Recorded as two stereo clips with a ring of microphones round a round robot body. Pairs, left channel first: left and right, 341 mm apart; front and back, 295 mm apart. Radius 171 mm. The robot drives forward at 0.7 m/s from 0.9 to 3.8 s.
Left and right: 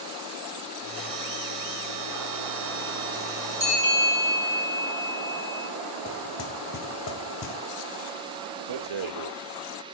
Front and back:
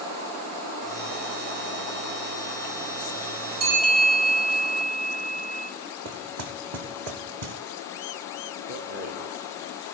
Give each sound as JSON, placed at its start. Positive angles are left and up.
{"t": 3.6, "sound": "a bell", "azimuth_deg": -165, "distance_m": 3.0}
{"t": 6.0, "sound": "knocking", "azimuth_deg": 145, "distance_m": 1.2}
{"t": 8.7, "sound": "a rattle", "azimuth_deg": -115, "distance_m": 0.7}